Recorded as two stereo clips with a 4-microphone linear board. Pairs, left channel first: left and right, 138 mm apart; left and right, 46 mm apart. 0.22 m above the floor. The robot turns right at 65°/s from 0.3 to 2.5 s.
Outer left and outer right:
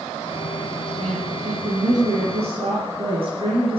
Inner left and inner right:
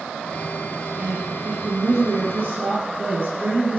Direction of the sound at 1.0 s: 145° right.